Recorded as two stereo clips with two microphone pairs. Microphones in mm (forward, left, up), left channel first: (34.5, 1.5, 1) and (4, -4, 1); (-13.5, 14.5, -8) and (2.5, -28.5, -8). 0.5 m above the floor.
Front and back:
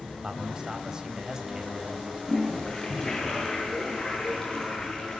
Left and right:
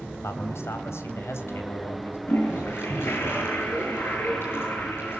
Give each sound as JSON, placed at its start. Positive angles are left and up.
{"t": 0.2, "sound": "a man speaking", "azimuth_deg": 120, "distance_m": 3.0}
{"t": 2.3, "sound": "a toilet flushing", "azimuth_deg": 75, "distance_m": 9.0}